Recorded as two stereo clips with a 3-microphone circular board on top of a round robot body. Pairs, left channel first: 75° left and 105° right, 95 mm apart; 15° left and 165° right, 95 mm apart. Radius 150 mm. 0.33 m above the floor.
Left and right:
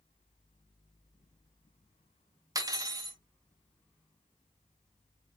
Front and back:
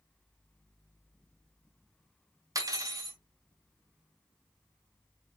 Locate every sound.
2.5 s cutlery clinking: 135° right, 0.8 m